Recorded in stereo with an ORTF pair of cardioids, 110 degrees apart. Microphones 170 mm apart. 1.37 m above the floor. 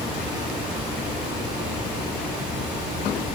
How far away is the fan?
About 6 m.